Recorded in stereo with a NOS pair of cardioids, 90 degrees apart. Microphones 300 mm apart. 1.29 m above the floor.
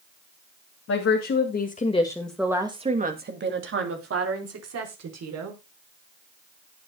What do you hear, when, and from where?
0.9 s a woman speaking: 55° left, 3 m; by 5.6 s 60° right, 5.5 m